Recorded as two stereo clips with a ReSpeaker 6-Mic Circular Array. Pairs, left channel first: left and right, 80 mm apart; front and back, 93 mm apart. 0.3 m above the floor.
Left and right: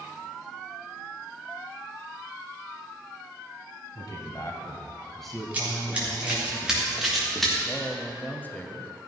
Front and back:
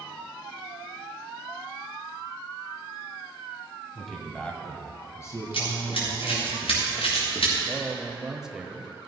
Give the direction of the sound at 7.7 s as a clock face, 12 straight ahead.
9 o'clock.